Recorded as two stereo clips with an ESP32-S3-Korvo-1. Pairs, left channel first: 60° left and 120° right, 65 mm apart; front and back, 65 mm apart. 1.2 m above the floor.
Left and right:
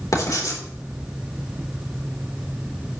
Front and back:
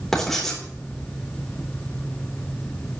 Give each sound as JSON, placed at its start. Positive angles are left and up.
{"t": 0.1, "sound": "writing", "azimuth_deg": 85, "distance_m": 3.5}